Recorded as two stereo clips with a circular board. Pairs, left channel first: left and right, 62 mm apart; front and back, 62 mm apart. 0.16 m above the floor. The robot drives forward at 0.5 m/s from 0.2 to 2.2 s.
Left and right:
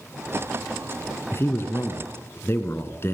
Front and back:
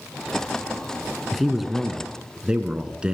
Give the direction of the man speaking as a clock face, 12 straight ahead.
9 o'clock.